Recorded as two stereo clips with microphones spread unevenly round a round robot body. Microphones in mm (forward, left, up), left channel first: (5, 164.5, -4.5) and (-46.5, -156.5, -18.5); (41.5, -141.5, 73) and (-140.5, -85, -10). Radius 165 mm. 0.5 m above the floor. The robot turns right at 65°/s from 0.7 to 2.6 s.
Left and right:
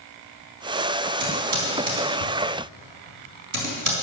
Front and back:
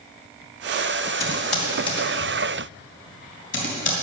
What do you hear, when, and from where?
1.2 s typing on a keyboard: 130° right, 4 m; by 3.9 s 40° right, 4 m